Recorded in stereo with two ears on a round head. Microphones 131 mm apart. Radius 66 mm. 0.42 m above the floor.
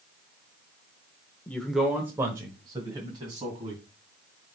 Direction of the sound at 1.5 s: 15° left (ahead or behind).